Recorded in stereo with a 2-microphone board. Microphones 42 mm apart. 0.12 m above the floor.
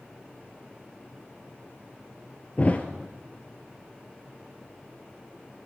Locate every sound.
2.6 s a thud: 35° left (ahead or behind), 1.2 m